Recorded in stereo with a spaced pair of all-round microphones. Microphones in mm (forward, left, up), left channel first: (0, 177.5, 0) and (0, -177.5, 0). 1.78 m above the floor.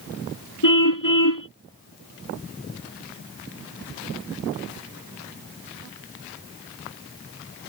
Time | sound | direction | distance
0.6 | a car horn | 60° left (ahead or behind) | ?